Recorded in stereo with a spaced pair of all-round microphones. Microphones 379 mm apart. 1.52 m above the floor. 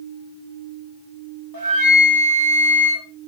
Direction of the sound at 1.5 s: 60° right (ahead or behind).